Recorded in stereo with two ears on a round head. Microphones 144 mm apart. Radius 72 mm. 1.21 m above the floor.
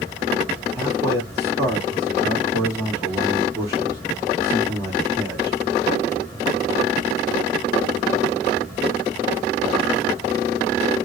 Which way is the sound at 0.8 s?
15° right (ahead or behind).